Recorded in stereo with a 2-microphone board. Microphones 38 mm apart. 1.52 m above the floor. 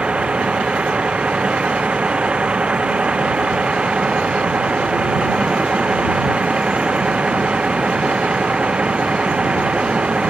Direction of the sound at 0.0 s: 30° right (ahead or behind).